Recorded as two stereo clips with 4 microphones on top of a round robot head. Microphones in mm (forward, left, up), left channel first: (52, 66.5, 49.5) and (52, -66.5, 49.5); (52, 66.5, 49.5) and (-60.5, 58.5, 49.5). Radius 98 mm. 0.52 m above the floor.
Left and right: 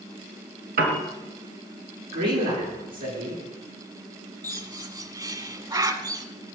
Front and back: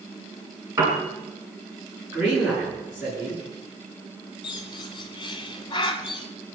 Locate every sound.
0.8 s a piano: 105° right, 3 m
2.1 s a man speaking: 95° right, 9.5 m
4.4 s a bird: 40° right, 1.9 m